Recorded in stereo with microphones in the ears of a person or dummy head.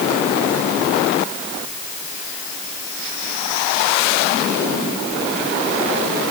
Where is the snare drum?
I don't hear a snare drum.